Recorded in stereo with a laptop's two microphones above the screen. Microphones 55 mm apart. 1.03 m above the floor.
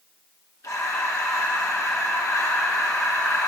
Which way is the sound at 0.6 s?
80° left.